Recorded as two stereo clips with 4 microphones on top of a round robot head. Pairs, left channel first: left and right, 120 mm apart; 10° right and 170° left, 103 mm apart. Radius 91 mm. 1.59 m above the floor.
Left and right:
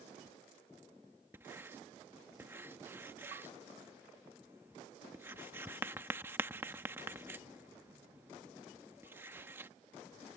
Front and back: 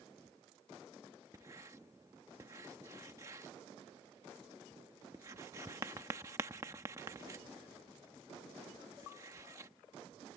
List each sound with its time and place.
1.3 s writing: 145° right